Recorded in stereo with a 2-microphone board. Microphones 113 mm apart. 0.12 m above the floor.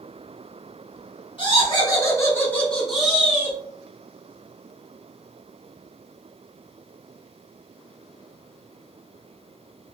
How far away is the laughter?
About 1.5 m.